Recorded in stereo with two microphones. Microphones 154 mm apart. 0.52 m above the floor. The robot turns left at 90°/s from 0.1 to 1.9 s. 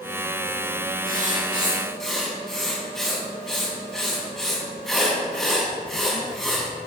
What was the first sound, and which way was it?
Writing, 105° right.